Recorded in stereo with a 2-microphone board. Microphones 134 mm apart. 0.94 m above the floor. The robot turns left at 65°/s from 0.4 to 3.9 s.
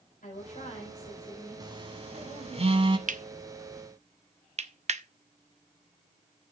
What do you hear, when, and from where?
0.2 s a woman speaking: 95° left, 3.5 m; by 2.6 s 50° right, 3.5 m
1.6 s a phone buzzing: 30° right (ahead or behind), 1.2 m; by 3.0 s 40° right (ahead or behind), 1.2 m
3.1 s cutlery clinking: 70° right (ahead or behind), 0.5 m; by 5.0 s 55° right (ahead or behind), 0.5 m